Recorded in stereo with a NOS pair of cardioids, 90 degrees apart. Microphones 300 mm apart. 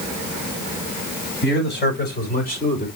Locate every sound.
1.4 s a man speaking: 40° left, 6 m; by 2.9 s 25° left, 4 m